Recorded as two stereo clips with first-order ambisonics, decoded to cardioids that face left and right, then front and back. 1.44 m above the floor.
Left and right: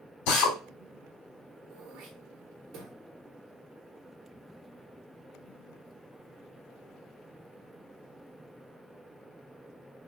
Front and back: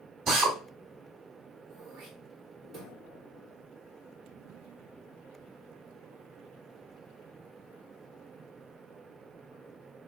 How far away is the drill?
About 2.5 m.